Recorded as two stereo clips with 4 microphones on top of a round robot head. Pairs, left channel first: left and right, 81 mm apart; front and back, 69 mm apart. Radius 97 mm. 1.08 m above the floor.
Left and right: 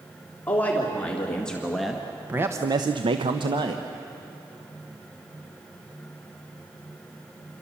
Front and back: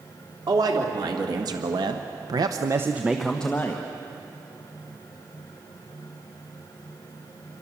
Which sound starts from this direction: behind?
A man speaking, at 0.5 s.